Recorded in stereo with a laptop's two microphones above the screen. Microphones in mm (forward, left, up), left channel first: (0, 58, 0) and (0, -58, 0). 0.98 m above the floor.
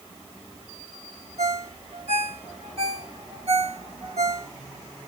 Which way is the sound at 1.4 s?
65° right (ahead or behind).